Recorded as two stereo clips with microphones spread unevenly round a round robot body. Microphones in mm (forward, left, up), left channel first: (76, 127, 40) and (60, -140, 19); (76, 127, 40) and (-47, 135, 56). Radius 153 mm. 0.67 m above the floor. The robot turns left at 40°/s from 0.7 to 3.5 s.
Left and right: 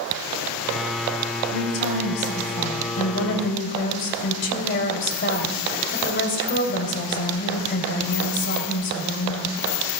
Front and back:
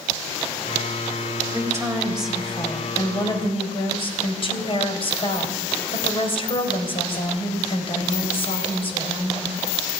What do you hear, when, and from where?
1.5 s a woman speaking: 120° left, 3.5 m; by 9.5 s 40° left, 3.5 m